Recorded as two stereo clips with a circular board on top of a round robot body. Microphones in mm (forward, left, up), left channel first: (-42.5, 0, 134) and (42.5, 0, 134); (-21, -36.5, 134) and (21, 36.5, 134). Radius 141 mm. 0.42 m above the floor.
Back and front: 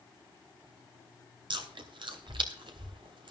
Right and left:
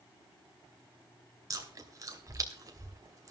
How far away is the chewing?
About 2.5 m.